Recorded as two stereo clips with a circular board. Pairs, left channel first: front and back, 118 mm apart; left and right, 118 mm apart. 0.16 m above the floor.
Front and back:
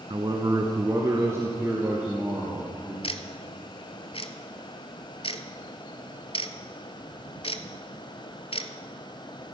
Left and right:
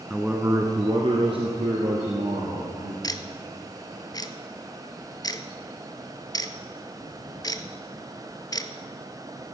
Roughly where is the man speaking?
Behind.